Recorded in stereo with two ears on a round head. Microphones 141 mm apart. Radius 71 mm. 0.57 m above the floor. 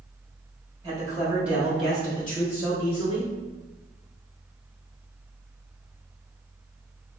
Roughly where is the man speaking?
Right.